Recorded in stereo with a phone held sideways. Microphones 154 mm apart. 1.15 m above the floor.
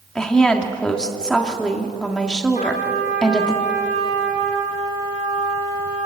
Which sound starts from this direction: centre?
A woman speaking, at 0.1 s.